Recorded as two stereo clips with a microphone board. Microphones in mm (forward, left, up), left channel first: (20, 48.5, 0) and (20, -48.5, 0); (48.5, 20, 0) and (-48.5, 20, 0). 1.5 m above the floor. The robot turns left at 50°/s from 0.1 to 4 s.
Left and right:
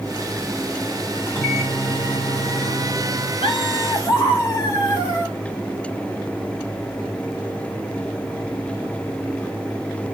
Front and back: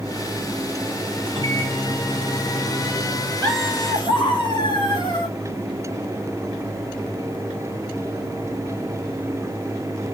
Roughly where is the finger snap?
I don't hear a finger snap.